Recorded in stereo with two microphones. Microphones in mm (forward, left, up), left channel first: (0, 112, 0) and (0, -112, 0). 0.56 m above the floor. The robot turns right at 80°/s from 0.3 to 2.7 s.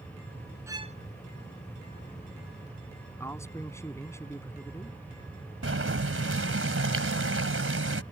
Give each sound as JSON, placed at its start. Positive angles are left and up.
{"t": 0.7, "sound": "a violin", "side_deg": -10}
{"t": 3.2, "sound": "a man speaking", "side_deg": 10}
{"t": 5.6, "sound": "boiling", "side_deg": -75}